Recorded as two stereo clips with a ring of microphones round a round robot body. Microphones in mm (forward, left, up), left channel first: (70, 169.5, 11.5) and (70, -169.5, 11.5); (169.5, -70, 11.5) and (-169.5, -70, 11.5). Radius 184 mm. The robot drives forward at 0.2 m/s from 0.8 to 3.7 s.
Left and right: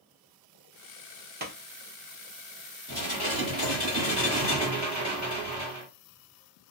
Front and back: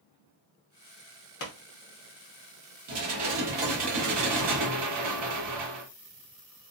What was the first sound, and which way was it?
A pop, 35° right.